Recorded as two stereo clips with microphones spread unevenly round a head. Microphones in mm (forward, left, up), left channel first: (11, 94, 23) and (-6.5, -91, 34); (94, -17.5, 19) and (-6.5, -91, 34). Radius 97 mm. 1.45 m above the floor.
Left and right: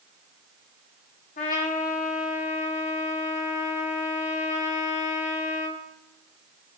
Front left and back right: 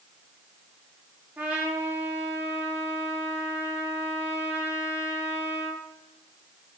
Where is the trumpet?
135° left, 1.5 m.